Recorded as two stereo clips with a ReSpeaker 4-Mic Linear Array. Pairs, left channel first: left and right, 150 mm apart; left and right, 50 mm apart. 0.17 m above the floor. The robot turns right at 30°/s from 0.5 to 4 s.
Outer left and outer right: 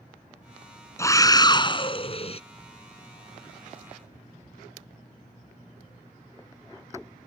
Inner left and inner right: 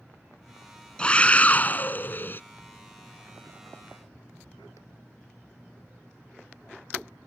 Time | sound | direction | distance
1.0 | a scream | 30° left | ?